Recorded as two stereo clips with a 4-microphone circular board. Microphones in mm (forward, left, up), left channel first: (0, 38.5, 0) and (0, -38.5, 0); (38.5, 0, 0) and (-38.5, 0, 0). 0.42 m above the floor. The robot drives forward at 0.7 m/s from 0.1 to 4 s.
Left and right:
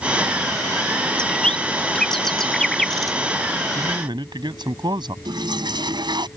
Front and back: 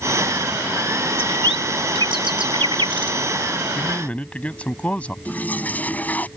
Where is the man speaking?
70° right; by 5.2 s 75° right.